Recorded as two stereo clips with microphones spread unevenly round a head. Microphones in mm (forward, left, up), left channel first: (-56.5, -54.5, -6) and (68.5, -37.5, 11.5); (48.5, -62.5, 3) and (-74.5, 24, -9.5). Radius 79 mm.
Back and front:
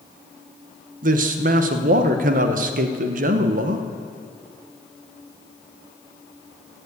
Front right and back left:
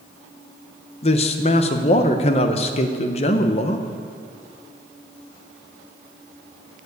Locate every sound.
1.0 s a man speaking: 15° left, 0.9 m